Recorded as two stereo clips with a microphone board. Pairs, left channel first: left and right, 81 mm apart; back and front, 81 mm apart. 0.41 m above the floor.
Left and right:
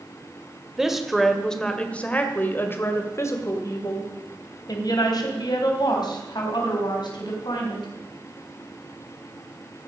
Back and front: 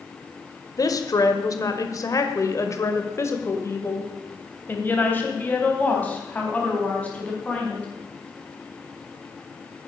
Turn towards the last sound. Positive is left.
turn(degrees=105)